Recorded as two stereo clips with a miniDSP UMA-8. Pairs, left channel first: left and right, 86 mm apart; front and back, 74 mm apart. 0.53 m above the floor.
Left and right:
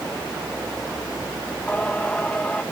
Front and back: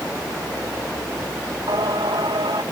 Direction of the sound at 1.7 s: 165° left.